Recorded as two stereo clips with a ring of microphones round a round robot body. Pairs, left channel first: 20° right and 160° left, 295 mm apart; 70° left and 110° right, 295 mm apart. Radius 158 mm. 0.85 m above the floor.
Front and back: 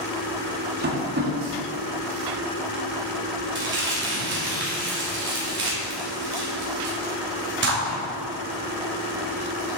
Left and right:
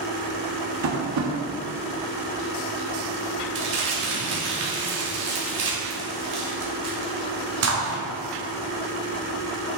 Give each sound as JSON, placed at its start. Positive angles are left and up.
{"t": 0.8, "sound": "tapping", "azimuth_deg": -145, "distance_m": 1.5}
{"t": 3.5, "sound": "crumpling", "azimuth_deg": -150, "distance_m": 2.5}